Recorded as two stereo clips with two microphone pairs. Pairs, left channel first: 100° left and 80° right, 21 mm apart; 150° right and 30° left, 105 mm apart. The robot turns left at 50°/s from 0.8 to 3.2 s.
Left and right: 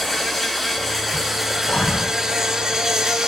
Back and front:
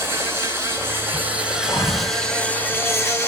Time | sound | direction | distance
0.0 | an insect | 5° right | 2 m
1.7 | breathing | 155° left | 3 m